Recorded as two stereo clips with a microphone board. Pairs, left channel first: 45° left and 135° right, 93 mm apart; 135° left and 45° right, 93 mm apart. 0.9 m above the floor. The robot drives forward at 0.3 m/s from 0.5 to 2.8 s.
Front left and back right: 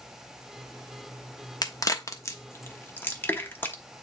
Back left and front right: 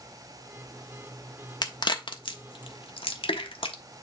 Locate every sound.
1.6 s a crack: 95° left, 0.9 m; by 3.8 s 115° left, 1.0 m